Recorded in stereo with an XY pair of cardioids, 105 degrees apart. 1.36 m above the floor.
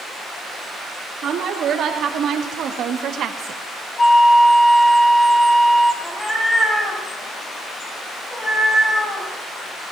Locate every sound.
1.2 s a woman speaking: 65° right, 3 m; by 3.6 s 70° right, 0.8 m
4.0 s a flute: 20° left, 1.0 m
6.0 s a cat meowing: 25° left, 4 m